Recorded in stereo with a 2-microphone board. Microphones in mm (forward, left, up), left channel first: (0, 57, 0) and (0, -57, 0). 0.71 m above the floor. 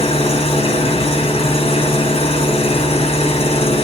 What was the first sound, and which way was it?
An engine running, 60° left (ahead or behind).